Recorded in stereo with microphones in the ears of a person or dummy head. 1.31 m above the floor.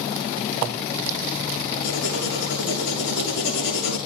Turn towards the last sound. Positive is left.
turn(degrees=75)  # may be behind; listen again after turning